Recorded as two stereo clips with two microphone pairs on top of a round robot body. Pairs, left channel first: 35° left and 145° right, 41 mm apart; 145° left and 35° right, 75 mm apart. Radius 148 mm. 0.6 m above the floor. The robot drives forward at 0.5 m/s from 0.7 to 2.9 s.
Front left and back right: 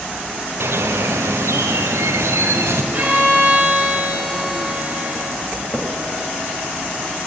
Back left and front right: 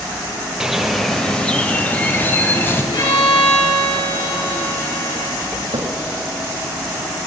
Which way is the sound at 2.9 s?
155° left.